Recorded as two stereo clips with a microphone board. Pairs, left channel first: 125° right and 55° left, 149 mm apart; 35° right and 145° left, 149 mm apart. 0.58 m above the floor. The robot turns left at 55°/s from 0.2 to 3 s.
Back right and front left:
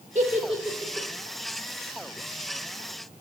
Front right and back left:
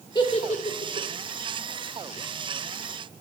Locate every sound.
0.1 s a giggle: 20° left, 0.7 m; by 1.1 s 25° right, 0.7 m